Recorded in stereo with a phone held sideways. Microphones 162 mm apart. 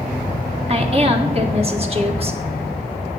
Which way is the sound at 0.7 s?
35° right (ahead or behind).